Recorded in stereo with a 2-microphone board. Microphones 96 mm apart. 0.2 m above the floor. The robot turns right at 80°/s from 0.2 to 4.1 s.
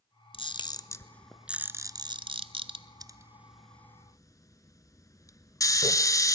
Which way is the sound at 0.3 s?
70° left (ahead or behind).